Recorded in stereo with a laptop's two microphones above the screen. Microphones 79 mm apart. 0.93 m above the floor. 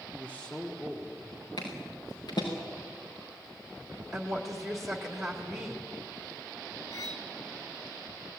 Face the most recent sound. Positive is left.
turn(degrees=55)  # may be behind; listen again after turning